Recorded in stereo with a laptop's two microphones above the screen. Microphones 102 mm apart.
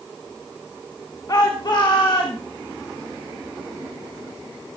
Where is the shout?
40° left (ahead or behind), 1.1 m; by 2.4 s 50° left (ahead or behind), 1.7 m.